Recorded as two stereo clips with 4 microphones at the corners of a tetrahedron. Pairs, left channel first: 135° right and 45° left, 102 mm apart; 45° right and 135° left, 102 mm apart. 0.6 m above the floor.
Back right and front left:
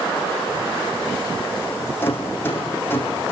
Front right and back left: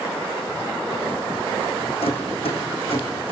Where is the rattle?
65° right, 5 m.